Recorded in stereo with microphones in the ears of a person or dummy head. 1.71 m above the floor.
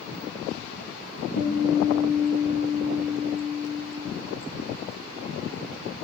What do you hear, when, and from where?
1.4 s a guitar: 85° left, 1.2 m